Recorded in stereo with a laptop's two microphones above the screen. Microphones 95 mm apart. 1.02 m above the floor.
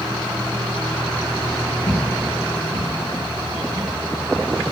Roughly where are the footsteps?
Left.